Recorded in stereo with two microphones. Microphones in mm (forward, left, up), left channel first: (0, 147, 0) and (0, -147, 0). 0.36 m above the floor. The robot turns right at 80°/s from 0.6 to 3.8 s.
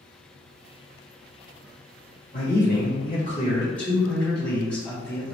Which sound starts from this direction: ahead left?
A man speaking, at 2.3 s.